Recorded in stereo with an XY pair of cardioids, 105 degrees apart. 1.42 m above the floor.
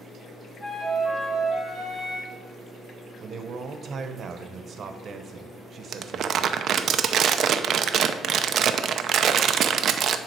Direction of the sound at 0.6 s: 25° left.